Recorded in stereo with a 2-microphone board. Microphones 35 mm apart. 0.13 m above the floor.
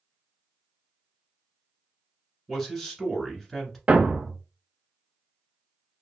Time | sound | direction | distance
2.5 | a man speaking | 10° left (ahead or behind) | 1.3 m
3.9 | a thud | 35° right (ahead or behind) | 0.7 m